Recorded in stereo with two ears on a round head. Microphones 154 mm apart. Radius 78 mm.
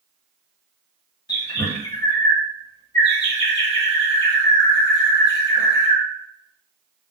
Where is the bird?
25° left (ahead or behind), 1.3 m.